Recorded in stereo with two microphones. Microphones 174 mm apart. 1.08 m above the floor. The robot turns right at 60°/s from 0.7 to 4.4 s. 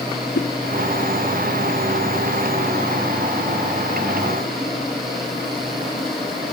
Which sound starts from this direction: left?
A whoosh, at 0.3 s.